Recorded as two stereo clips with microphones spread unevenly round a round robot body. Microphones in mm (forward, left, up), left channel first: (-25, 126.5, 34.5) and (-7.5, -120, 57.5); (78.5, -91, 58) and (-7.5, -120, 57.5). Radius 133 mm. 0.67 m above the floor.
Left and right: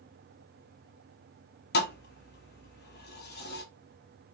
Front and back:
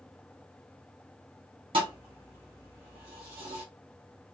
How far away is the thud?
About 0.8 m.